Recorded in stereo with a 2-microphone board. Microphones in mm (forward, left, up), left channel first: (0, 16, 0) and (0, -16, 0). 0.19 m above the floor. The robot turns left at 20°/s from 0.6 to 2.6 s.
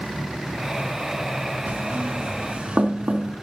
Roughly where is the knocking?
Right.